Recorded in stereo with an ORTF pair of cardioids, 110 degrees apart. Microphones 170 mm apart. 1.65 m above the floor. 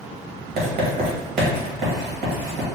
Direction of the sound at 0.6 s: 70° right.